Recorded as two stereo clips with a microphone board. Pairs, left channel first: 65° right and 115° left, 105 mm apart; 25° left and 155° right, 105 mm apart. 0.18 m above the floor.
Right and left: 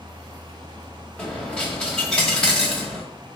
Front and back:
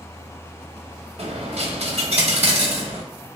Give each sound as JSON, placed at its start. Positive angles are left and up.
{"t": 1.2, "sound": "a dropped coin", "azimuth_deg": -150, "distance_m": 0.8}